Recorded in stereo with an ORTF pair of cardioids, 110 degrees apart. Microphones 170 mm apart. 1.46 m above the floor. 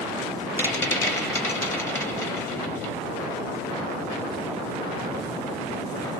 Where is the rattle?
15° left, 1.0 m.